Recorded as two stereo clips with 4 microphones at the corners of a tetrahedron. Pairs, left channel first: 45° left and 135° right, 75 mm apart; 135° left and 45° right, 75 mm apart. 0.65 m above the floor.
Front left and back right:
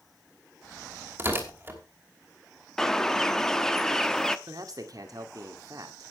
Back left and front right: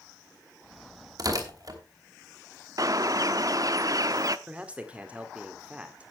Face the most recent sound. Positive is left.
turn(degrees=-115)